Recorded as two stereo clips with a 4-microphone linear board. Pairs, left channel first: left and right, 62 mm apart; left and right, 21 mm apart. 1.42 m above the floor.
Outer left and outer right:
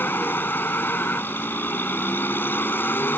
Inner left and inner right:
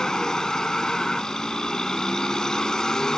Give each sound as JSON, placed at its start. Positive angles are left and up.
{"t": 0.0, "sound": "a vehicle", "side_deg": 30}